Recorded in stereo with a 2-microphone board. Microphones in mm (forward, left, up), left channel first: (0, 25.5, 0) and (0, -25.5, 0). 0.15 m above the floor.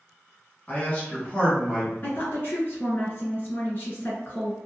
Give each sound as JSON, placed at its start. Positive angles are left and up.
{"t": 0.7, "sound": "a man speaking", "side_deg": 30, "distance_m": 1.8}
{"t": 2.0, "sound": "a woman speaking", "side_deg": 40, "distance_m": 1.8}